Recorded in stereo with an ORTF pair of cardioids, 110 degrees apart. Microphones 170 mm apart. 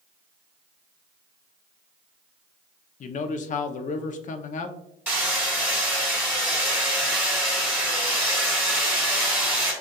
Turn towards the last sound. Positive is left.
turn(degrees=-10)